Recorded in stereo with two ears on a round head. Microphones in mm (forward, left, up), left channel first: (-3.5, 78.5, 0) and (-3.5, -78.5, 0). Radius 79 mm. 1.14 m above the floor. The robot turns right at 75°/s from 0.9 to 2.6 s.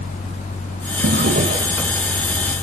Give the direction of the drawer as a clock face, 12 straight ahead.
2 o'clock.